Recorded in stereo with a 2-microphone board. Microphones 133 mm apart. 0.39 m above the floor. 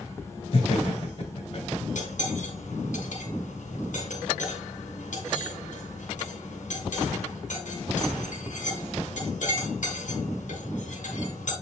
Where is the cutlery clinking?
75° left (ahead or behind), 2.5 m.